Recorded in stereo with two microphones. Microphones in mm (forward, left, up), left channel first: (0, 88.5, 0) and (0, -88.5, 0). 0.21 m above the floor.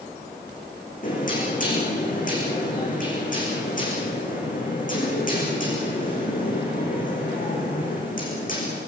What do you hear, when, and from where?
1.0 s knocking: 50° left (ahead or behind), 9.5 m